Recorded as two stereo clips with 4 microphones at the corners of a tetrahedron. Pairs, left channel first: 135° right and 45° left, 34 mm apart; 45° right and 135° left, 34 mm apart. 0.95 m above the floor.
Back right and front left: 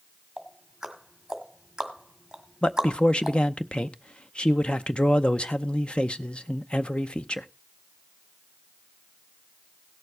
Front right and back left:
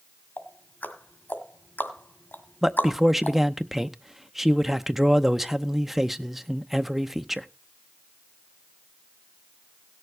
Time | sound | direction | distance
0.4 | ticking | 25° right | 1.9 m
2.6 | a man speaking | 145° right | 0.7 m